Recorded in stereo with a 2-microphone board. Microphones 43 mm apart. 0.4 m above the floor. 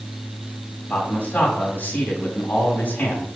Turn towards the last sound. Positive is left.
turn(degrees=40)  # may be behind; listen again after turning